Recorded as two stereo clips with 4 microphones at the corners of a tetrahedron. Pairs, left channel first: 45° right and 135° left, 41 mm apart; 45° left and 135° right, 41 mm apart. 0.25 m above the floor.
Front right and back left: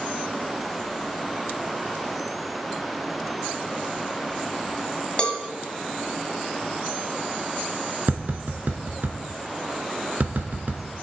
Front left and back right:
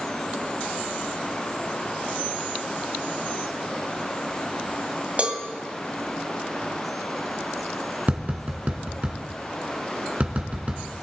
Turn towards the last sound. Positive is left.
turn(degrees=175)